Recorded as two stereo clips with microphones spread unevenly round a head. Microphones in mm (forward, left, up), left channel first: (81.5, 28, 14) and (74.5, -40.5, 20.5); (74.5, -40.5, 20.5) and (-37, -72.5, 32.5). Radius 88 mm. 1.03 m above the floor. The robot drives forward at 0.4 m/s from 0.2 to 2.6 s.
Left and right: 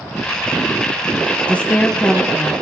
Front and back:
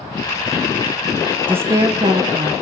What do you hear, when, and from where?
1.5 s a woman speaking: 130° left, 0.6 m; by 2.5 s 160° left, 0.8 m